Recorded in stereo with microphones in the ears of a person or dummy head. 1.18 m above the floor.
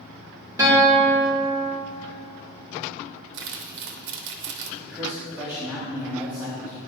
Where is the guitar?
20° right (ahead or behind), 2 m.